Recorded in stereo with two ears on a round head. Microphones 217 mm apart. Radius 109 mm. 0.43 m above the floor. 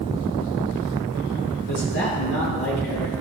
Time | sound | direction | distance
1.7 | a man speaking | 50° left (ahead or behind) | 7 m